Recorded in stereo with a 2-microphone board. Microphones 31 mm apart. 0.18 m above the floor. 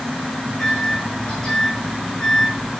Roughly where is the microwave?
Left.